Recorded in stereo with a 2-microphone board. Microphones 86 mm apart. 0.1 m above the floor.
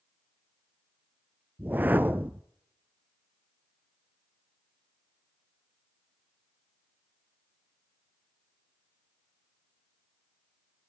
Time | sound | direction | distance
1.6 | a whoosh | 20° right (ahead or behind) | 0.6 m